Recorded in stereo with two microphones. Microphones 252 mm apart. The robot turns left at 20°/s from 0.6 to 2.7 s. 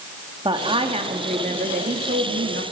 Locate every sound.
0.5 s a woman speaking: 25° right, 1.6 m; by 2.6 s 70° right, 1.6 m